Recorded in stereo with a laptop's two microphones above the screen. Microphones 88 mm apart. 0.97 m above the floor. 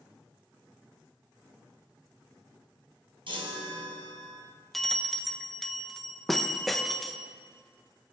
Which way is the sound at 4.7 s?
Centre (ahead or behind).